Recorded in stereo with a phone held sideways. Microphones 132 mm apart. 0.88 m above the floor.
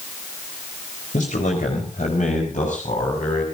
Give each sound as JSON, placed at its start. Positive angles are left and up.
{"t": 1.1, "sound": "a man speaking", "side_deg": 70, "distance_m": 4.0}